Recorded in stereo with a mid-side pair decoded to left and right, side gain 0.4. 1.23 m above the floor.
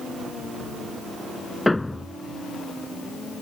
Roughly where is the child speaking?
I don't hear a child speaking.